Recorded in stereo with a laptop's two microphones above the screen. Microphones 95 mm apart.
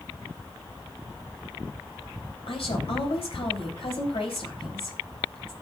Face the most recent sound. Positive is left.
turn(degrees=75)  # may be behind; listen again after turning